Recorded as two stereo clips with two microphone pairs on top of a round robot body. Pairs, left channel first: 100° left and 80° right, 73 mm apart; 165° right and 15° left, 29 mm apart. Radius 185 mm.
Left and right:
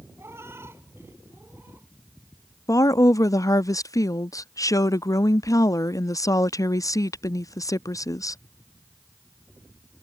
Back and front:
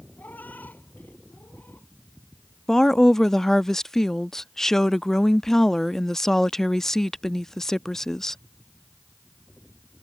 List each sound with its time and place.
0.2 s a cat meowing: 135° right; by 1.9 s 145° right
2.7 s a woman speaking: 125° left